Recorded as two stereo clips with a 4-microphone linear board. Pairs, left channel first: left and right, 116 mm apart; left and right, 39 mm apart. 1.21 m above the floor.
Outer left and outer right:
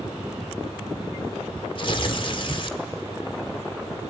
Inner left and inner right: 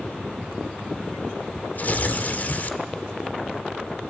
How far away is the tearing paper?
About 1.5 m.